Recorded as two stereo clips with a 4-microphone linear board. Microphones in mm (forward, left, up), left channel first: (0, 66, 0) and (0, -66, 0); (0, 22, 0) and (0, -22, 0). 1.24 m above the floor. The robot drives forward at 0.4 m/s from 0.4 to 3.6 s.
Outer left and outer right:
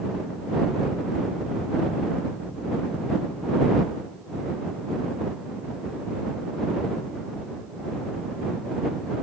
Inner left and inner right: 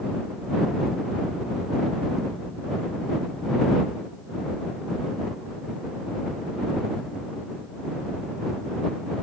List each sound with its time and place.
Only background noise.